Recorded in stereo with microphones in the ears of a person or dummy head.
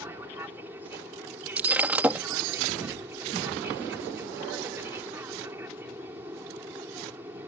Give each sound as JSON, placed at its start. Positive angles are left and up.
{"t": 0.0, "sound": "an aircraft", "side_deg": -10}
{"t": 1.6, "sound": "breaking glass", "side_deg": 0}